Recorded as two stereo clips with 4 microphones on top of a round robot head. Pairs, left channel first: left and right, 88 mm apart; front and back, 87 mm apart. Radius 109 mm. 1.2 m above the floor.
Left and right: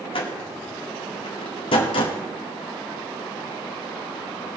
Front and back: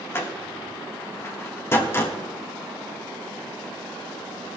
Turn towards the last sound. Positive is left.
turn(degrees=60)